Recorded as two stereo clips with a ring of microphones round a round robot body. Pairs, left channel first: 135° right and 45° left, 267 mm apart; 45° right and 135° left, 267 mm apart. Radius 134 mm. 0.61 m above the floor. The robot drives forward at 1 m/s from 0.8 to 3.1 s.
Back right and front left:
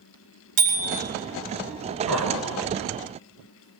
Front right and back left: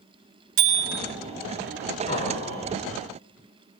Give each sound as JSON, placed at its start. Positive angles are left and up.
{"t": 0.6, "sound": "a bicycle bell", "azimuth_deg": 95, "distance_m": 5.0}
{"t": 2.1, "sound": "laughter", "azimuth_deg": 20, "distance_m": 6.5}